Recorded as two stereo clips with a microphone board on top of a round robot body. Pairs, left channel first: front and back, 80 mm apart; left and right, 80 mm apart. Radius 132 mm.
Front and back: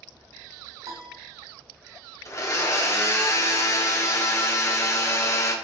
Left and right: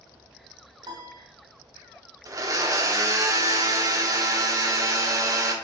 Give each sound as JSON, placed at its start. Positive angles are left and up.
{"t": 0.8, "sound": "a piano", "azimuth_deg": -125, "distance_m": 1.1}
{"t": 2.2, "sound": "a blender", "azimuth_deg": -50, "distance_m": 1.4}